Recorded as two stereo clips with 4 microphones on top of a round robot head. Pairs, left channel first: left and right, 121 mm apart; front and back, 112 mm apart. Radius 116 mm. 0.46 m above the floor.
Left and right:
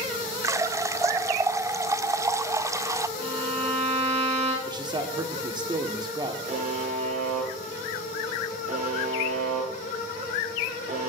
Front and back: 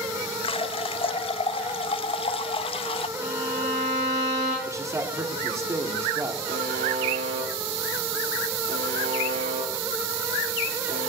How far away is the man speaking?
About 1.7 m.